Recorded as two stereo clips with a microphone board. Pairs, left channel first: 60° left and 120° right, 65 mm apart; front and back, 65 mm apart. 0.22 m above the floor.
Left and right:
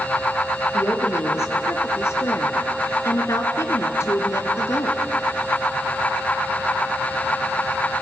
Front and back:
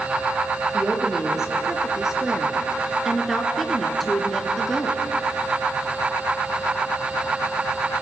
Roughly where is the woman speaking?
Left.